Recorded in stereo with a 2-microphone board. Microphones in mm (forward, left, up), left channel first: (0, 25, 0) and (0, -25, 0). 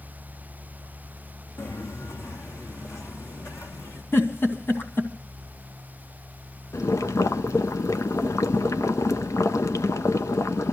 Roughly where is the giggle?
Left.